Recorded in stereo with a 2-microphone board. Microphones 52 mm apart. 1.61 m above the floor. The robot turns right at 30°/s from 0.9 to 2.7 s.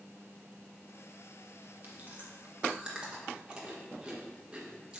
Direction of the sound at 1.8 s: 40° right (ahead or behind).